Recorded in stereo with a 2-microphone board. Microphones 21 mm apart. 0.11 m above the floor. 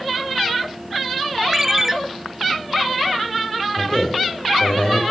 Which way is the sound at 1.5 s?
20° right (ahead or behind).